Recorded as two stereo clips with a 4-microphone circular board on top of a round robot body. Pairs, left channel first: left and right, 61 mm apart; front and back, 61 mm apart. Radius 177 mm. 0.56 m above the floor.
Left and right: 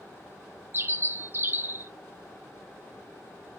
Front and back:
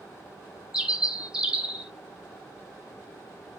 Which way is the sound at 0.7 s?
110° right.